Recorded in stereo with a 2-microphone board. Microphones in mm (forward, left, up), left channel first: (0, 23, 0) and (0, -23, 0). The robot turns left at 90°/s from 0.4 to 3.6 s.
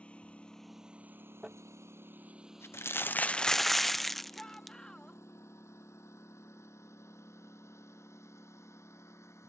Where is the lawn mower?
25° left (ahead or behind); by 9.5 s 85° left.